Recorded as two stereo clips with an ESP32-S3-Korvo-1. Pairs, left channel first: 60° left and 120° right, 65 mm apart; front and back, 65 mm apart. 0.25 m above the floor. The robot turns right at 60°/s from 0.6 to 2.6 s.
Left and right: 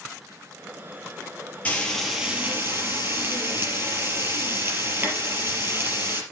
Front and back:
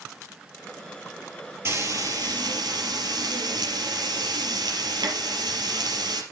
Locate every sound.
1.6 s frying: 130° left, 4.5 m; by 6.2 s 175° right, 4.5 m